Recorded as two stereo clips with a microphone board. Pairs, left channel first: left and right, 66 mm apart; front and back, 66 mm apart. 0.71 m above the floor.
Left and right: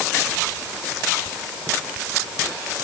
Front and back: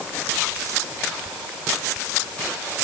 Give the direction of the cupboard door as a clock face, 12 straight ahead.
No cupboard door in this recording.